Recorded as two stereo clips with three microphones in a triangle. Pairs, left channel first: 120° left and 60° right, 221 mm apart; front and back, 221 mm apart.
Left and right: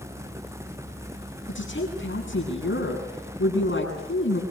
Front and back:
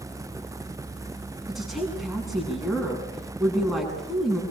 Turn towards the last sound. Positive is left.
turn(degrees=90)